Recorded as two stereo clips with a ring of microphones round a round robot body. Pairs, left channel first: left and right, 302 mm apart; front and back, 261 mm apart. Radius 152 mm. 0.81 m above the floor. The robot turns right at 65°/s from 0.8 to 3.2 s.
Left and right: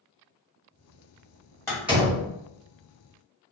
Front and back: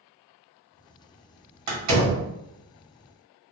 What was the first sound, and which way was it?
A door slam, 170° left.